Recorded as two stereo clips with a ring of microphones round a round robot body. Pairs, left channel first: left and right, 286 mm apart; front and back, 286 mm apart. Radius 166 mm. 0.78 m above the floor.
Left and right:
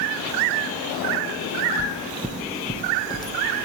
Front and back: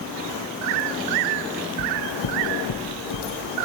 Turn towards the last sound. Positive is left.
turn(degrees=15)